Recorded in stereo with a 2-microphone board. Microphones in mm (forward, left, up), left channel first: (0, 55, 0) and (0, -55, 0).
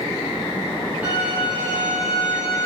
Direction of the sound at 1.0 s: 15° right (ahead or behind).